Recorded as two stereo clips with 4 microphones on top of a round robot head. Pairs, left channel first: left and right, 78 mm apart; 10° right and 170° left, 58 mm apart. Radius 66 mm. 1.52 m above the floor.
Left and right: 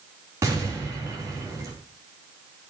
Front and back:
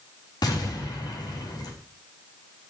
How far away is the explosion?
About 4 m.